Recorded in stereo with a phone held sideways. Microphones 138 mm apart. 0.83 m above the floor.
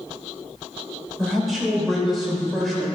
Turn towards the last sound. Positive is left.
turn(degrees=0)  # may be behind; listen again after turning